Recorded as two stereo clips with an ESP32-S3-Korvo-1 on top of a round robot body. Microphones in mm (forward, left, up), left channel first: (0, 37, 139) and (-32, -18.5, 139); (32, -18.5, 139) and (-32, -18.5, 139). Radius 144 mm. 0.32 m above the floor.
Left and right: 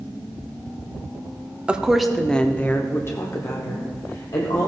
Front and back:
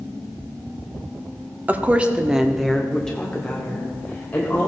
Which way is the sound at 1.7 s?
175° right.